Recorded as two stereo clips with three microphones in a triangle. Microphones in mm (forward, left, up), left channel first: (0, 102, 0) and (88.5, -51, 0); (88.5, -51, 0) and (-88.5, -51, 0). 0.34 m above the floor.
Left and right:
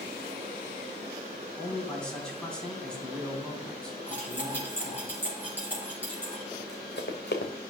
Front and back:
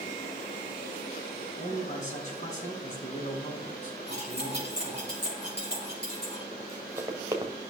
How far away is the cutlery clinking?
About 3.5 m.